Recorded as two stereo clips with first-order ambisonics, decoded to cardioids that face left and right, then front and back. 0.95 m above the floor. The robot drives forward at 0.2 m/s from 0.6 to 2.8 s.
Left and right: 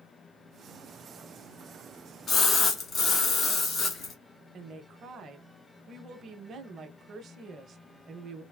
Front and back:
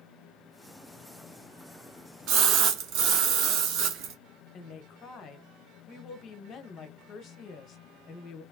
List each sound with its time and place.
2.3 s a splash: 155° left, 0.8 m
4.5 s a woman speaking: 40° right, 0.6 m